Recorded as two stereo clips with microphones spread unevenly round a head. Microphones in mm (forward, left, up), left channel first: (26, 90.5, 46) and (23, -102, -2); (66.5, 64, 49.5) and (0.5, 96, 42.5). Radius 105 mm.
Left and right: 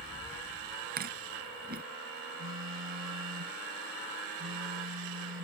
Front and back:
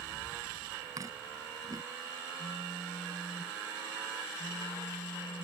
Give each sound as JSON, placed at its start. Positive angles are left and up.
{"t": 1.0, "sound": "chewing", "azimuth_deg": -140}
{"t": 2.4, "sound": "a phone buzzing", "azimuth_deg": -65}